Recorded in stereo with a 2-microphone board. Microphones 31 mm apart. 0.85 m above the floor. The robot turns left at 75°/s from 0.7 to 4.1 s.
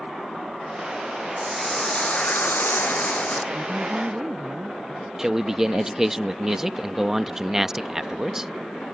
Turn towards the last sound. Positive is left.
turn(degrees=-10)  # may be behind; listen again after turning